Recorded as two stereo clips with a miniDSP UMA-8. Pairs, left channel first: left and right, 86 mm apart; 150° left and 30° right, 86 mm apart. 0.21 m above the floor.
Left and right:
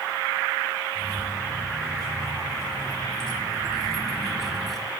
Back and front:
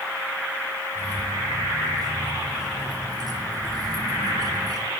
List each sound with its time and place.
0.9 s keys jangling: 10° left, 4.5 m; by 4.9 s straight ahead, 2 m